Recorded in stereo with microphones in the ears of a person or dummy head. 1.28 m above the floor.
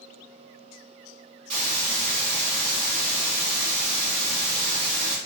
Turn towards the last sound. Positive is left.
turn(degrees=-45)  # may be behind; listen again after turning